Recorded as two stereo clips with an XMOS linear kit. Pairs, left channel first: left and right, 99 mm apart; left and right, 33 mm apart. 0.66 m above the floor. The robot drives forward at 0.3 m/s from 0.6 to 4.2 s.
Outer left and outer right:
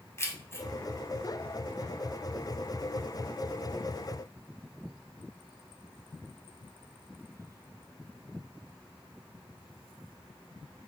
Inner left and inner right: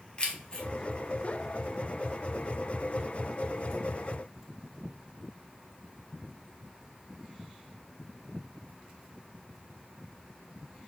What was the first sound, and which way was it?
Keys jangling, 30° left (ahead or behind).